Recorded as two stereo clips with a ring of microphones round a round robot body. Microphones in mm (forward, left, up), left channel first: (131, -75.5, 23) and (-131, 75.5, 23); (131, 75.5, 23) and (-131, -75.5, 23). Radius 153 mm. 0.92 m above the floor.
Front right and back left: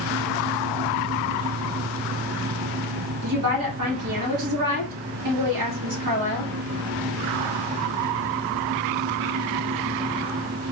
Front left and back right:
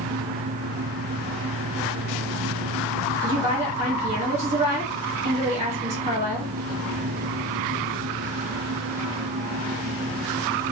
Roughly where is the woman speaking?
Behind left.